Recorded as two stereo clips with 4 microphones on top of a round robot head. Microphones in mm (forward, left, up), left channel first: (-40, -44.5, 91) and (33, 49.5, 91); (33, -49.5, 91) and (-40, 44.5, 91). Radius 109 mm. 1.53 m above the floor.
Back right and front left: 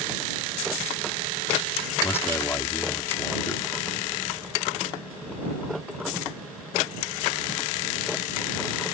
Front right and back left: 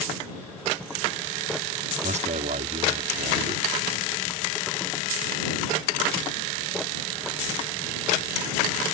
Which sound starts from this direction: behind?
A man speaking, at 2.0 s.